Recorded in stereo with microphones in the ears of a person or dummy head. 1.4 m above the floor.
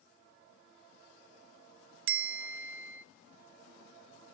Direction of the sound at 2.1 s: 75° right (ahead or behind).